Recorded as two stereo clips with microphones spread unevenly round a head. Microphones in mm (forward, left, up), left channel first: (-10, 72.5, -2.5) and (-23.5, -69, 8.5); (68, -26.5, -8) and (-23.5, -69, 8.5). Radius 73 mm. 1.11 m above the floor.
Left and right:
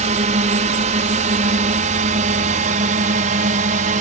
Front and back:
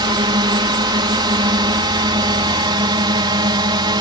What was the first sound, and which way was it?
A drone, 120° right.